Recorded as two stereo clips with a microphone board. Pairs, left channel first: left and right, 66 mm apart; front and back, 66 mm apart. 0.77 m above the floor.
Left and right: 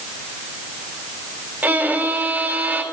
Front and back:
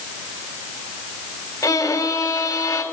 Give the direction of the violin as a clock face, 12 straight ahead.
1 o'clock.